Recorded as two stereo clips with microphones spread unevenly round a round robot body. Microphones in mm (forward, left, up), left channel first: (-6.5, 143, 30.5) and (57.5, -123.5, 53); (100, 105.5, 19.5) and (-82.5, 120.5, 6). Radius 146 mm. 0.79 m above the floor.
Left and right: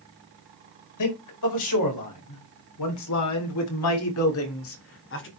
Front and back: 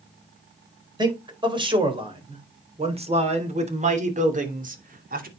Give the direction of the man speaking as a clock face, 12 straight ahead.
8 o'clock.